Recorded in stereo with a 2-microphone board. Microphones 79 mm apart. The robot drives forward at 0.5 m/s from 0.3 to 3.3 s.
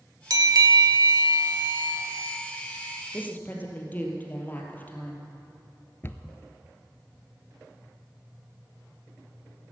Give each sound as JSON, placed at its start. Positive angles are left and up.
{"t": 0.3, "sound": "a bell", "side_deg": -55, "distance_m": 0.7}
{"t": 3.1, "sound": "a woman speaking", "side_deg": 25, "distance_m": 2.5}
{"t": 6.0, "sound": "a cupboard door", "side_deg": 30, "distance_m": 0.7}